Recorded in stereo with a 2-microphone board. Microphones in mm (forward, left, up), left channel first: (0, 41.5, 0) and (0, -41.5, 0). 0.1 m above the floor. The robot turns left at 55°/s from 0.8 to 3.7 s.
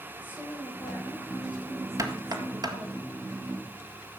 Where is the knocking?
45° right (ahead or behind), 1.8 m; by 2.8 s 50° right (ahead or behind), 1.8 m.